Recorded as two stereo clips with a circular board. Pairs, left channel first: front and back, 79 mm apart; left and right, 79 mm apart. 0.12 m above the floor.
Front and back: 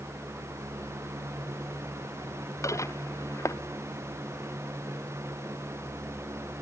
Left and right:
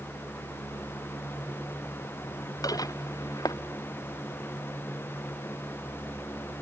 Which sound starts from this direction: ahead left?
Dishes clattering, at 2.6 s.